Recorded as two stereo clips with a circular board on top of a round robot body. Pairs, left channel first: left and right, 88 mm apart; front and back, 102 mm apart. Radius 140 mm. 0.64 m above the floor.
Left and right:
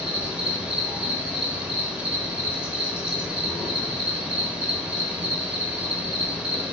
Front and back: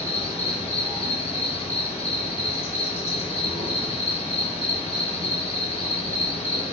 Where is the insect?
15° right, 3 m.